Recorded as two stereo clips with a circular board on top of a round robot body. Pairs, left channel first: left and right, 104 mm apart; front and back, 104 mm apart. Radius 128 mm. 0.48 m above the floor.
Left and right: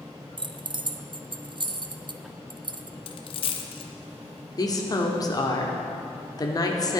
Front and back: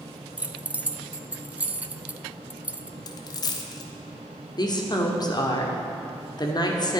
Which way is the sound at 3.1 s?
55° left.